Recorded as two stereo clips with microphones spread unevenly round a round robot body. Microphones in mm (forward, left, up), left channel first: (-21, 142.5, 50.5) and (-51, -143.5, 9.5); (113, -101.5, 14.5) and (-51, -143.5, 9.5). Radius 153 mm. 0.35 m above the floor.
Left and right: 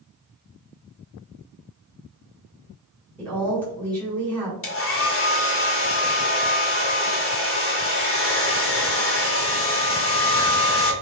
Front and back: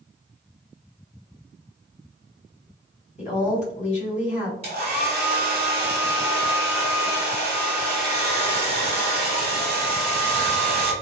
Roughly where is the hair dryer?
Behind left.